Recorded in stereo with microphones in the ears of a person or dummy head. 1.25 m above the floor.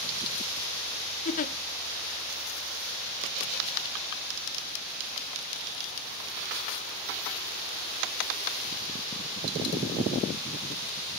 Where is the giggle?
40° left (ahead or behind), 0.6 m.